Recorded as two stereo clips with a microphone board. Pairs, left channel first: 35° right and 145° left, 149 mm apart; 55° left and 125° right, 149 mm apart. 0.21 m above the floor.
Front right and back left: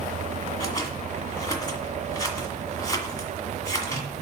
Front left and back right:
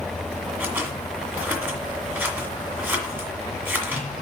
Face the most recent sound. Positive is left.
turn(degrees=-65)